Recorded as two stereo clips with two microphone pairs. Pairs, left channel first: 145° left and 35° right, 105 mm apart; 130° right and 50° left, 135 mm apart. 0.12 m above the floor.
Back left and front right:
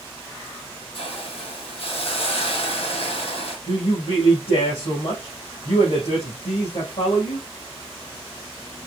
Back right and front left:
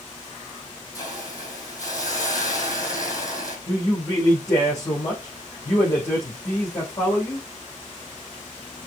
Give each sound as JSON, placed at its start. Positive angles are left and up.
{"t": 0.9, "sound": "a hiss", "azimuth_deg": 165, "distance_m": 2.5}
{"t": 3.7, "sound": "a man speaking", "azimuth_deg": 165, "distance_m": 3.0}